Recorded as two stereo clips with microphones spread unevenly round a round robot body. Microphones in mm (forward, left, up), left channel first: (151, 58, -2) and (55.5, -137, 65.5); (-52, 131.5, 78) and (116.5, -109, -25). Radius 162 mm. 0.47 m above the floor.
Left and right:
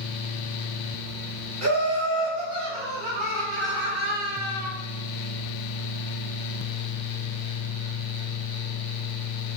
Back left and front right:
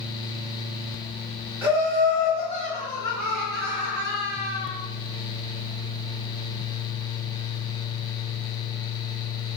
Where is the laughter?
125° right, 1.5 m; by 4.7 s 45° right, 1.3 m.